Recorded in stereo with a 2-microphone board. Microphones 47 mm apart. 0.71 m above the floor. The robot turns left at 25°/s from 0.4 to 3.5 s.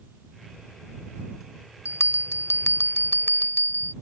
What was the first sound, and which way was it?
A bell, 90° left.